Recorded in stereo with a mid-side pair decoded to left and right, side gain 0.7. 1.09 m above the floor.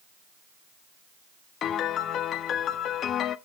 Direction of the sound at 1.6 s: 45° left.